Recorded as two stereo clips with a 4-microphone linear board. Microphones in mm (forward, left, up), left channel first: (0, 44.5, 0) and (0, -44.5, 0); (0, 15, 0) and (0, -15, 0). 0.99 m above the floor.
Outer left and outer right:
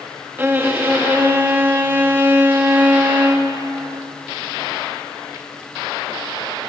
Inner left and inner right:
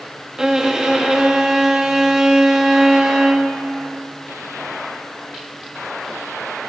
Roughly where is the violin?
Right.